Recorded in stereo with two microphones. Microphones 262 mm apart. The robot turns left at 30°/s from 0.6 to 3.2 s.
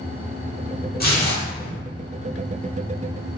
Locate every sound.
1.0 s tearing paper: 35° left (ahead or behind), 1.4 m; by 1.8 s 40° left (ahead or behind), 1.4 m